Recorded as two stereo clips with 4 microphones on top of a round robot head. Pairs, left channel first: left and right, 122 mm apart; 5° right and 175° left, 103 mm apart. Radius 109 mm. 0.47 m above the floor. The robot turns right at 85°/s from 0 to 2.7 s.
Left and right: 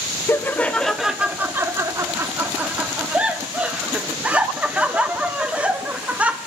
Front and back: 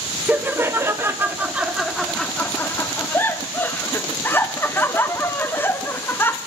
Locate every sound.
0.3 s laughter: 125° left, 0.7 m; by 6.4 s 30° right, 0.7 m